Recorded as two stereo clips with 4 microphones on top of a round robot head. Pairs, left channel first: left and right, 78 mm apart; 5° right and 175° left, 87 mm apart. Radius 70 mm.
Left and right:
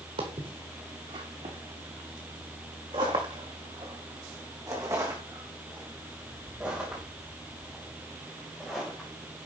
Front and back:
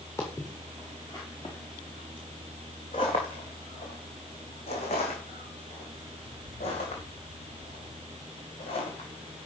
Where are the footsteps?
70° right, 4 m; by 9.1 s 10° left, 4.5 m.